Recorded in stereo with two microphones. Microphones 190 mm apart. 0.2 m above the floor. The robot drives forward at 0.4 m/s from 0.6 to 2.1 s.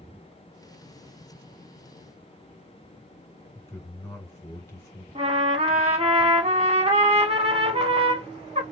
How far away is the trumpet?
About 0.8 m.